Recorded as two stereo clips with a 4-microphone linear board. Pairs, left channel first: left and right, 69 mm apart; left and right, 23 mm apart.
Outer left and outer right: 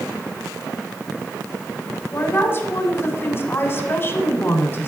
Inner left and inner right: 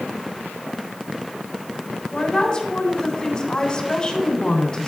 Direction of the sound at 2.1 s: 35° left (ahead or behind).